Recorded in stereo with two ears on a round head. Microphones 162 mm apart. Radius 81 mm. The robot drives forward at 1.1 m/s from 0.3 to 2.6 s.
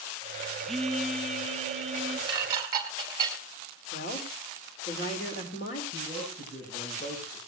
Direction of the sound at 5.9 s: 45° left (ahead or behind).